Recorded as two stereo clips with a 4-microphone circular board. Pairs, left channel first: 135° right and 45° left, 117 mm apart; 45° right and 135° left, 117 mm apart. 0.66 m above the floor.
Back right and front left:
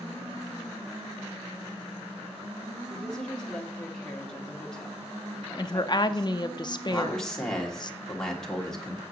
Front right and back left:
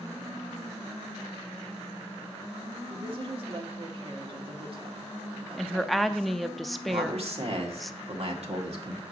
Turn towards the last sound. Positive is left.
turn(degrees=140)